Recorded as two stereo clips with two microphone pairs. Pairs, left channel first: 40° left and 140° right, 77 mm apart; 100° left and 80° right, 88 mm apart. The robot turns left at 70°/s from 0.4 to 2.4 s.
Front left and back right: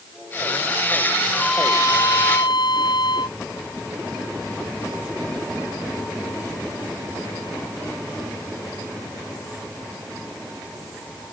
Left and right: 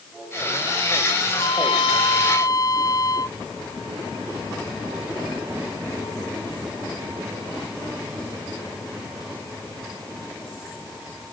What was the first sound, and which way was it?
A trumpet, 130° left.